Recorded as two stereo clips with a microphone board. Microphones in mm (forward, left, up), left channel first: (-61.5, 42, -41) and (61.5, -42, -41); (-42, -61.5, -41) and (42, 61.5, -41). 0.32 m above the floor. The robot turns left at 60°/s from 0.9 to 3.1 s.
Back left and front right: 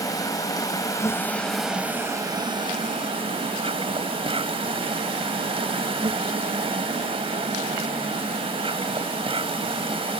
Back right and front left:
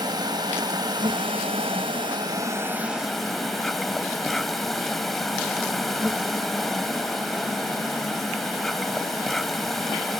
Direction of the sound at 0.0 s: 95° left.